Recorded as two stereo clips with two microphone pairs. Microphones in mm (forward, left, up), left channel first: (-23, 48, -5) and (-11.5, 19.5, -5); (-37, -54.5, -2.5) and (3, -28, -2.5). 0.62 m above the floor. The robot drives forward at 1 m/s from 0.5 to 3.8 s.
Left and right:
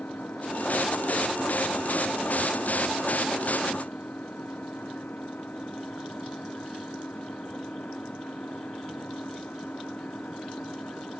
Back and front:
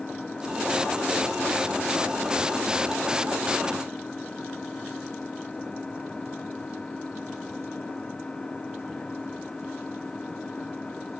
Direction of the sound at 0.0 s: 135° left.